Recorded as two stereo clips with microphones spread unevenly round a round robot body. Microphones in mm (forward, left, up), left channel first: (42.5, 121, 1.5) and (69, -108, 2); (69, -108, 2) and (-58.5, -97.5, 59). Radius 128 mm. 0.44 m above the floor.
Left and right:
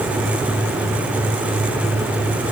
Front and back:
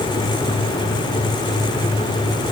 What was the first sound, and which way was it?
Only background noise.